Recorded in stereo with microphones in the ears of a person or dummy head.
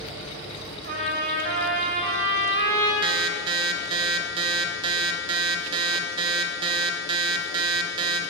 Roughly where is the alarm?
Right.